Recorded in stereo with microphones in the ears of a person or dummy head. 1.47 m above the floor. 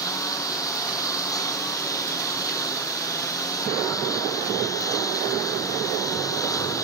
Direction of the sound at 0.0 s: 15° left (ahead or behind).